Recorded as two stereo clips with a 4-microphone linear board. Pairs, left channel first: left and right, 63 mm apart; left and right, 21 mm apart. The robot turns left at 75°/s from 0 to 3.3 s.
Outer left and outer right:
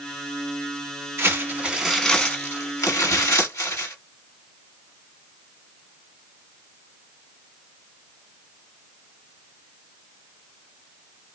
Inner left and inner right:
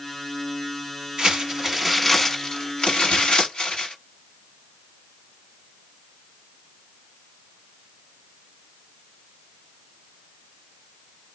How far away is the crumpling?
About 1.3 m.